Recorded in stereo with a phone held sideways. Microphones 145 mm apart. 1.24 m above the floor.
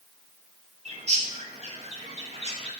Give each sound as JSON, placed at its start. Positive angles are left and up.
{"t": 0.8, "sound": "a bird", "side_deg": -50, "distance_m": 1.4}